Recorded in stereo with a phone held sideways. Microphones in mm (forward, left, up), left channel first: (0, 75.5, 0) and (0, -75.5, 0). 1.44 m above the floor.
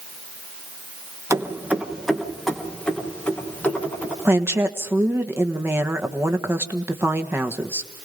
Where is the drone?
No drone in this recording.